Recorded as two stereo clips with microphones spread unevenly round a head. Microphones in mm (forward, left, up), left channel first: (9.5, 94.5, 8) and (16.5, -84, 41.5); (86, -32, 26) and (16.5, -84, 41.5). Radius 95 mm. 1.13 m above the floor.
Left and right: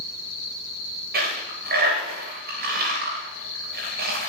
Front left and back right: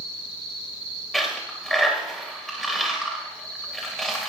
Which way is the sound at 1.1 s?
50° right.